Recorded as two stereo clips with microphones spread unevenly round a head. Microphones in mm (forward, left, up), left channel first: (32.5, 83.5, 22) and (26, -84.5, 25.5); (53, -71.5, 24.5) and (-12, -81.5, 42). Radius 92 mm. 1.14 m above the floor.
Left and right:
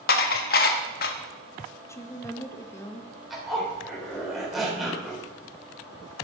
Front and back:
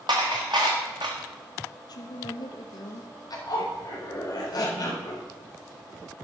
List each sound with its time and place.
0.1 s dishes clattering: 130° left, 1.0 m
1.9 s a woman speaking: 15° left, 1.2 m
3.3 s a zipper: 5° right, 3.5 m